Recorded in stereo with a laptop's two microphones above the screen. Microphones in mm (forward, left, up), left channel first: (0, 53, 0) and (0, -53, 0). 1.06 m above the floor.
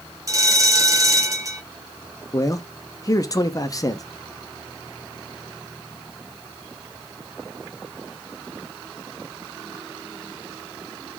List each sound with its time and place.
0.3 s a bell: 30° right (ahead or behind), 0.8 m
2.3 s a man speaking: 35° left (ahead or behind), 0.5 m